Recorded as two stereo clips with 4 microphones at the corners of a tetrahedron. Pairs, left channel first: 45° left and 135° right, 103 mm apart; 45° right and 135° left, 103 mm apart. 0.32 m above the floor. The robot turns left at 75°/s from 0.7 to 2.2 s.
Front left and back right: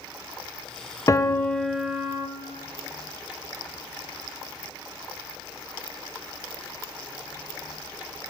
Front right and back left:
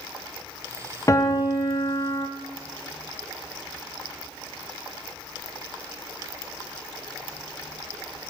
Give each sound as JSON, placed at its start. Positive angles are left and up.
{"t": 1.1, "sound": "a piano", "azimuth_deg": 0, "distance_m": 0.6}